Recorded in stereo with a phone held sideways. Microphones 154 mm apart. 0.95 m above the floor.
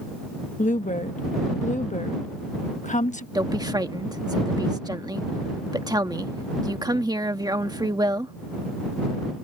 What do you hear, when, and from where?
0.6 s a woman speaking: 50° left (ahead or behind)
3.4 s a woman speaking: 25° right (ahead or behind)